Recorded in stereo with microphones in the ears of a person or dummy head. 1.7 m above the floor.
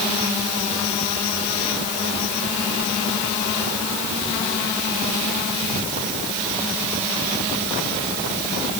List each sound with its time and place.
Only background noise.